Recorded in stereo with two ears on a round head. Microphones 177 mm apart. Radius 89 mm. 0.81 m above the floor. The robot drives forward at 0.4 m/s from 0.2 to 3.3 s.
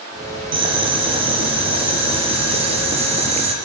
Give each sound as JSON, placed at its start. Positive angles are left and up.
{"t": 0.5, "sound": "boiling", "side_deg": -25, "distance_m": 6.0}